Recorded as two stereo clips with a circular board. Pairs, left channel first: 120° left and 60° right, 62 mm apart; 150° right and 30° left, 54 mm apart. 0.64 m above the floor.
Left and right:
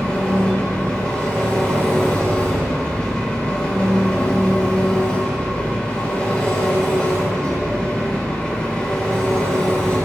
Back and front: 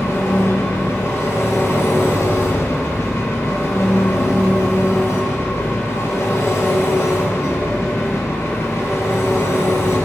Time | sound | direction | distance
0.0 | an engine running | 170° right | 2.5 m